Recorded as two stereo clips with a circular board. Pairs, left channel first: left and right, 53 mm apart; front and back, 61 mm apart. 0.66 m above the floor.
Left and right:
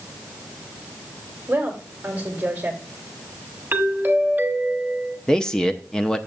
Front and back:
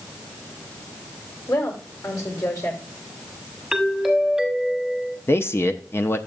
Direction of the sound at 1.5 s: 30° right.